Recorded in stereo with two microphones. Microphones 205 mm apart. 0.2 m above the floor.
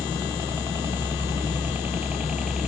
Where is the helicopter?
20° right (ahead or behind); by 2.7 s centre (ahead or behind).